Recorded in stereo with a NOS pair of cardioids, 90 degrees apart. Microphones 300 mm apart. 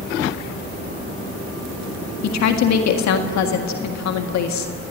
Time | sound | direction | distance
2.2 | a woman speaking | 70° left | 1.8 m